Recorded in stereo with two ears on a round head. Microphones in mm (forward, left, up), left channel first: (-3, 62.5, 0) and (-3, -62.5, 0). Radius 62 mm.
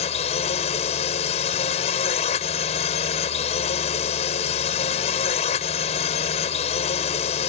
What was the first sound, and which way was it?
A drone, 45° left (ahead or behind).